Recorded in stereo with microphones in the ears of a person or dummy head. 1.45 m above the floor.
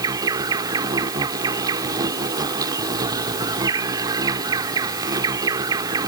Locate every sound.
0.0 s an insect: 25° right (ahead or behind)